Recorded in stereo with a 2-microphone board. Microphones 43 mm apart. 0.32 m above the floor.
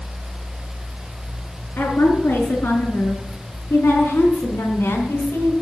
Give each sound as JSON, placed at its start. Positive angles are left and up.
{"t": 1.8, "sound": "a woman speaking", "side_deg": 65, "distance_m": 3.5}